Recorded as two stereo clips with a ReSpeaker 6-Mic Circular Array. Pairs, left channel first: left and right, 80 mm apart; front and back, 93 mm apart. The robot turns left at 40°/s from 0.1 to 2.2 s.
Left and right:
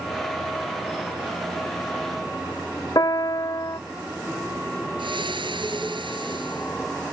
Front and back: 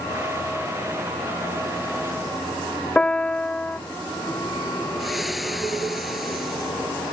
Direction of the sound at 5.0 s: 90° right.